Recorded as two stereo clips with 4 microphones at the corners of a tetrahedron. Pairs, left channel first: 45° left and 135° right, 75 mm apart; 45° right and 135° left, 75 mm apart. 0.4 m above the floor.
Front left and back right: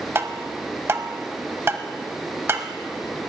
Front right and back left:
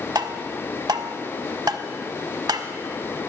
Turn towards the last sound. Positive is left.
turn(degrees=170)